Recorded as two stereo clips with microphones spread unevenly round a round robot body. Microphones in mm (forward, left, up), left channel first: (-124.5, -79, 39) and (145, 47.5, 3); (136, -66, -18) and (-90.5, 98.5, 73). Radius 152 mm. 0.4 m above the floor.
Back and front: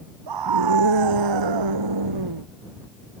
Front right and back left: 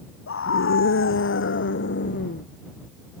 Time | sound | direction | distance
0.3 | a scream | 10° left | ?